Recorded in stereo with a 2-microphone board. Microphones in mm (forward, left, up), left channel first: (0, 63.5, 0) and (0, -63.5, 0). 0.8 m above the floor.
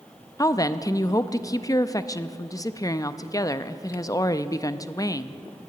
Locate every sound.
0.4 s a woman speaking: 25° left (ahead or behind), 0.5 m